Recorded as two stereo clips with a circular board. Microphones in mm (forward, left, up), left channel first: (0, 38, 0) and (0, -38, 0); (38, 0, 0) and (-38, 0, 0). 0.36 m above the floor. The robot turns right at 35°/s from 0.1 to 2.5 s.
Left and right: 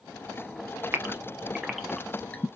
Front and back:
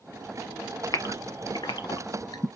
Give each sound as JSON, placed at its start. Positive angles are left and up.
{"t": 0.9, "sound": "a gasp", "azimuth_deg": -30, "distance_m": 0.7}